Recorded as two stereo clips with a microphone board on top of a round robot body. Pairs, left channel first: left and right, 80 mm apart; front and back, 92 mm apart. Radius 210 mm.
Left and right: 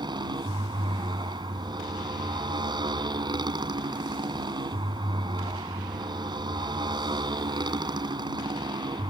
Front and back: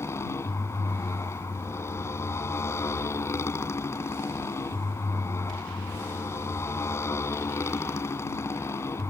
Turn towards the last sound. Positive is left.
turn(degrees=-60)